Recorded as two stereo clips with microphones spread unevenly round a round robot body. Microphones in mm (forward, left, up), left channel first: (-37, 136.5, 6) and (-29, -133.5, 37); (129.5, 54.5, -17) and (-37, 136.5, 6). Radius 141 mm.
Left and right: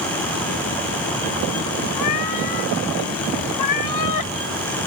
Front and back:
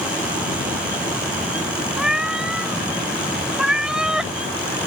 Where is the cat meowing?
65° left; by 4.3 s 70° left.